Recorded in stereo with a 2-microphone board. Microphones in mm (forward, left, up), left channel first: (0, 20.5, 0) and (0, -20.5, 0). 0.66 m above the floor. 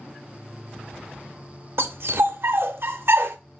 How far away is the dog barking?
About 0.6 m.